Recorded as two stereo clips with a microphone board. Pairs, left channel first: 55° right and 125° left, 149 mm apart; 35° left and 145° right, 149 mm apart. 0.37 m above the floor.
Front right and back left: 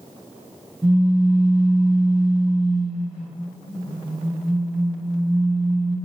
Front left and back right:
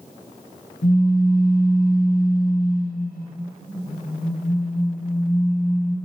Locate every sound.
0.8 s a pop: 40° left, 0.6 m